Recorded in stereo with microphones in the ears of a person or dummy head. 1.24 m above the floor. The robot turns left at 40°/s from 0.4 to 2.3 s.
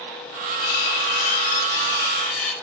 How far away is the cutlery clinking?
About 1.6 m.